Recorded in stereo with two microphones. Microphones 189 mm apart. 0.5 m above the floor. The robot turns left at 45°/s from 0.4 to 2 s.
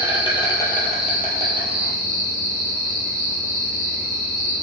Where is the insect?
25° left, 1.8 m; by 4.6 s 45° right, 1.8 m.